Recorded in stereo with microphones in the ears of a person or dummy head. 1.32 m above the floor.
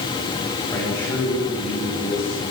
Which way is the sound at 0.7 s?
10° left (ahead or behind).